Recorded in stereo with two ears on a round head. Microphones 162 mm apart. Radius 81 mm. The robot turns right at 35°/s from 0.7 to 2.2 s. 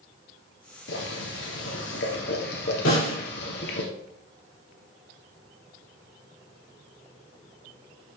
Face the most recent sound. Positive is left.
turn(degrees=80)